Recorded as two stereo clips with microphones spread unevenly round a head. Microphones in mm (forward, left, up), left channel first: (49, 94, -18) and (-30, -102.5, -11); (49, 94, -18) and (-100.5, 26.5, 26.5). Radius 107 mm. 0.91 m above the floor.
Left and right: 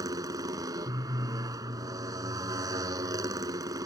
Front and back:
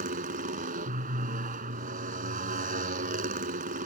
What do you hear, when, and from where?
0.0 s a motorcycle: 175° left